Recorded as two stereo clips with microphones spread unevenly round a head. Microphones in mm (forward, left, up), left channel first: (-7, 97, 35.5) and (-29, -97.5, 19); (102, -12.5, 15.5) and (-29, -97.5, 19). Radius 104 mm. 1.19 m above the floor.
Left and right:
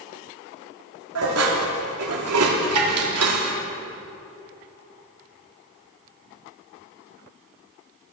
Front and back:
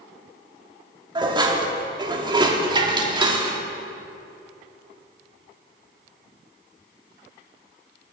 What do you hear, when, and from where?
1.1 s dishes clattering: 85° right, 1.9 m